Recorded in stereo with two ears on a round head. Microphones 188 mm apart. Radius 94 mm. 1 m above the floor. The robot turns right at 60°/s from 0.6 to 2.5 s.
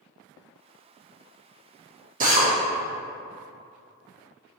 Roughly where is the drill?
Right.